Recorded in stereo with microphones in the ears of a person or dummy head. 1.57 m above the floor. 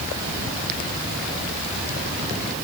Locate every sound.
Only background noise.